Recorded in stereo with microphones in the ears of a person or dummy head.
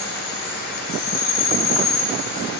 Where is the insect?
50° left (ahead or behind), 1.2 m.